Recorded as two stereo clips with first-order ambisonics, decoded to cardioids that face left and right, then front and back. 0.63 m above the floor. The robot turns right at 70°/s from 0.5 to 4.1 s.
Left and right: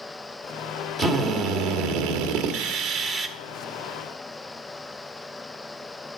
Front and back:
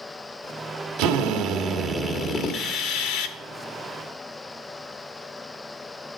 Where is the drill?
160° right, 1.4 m; by 3.4 s 5° left, 1.4 m.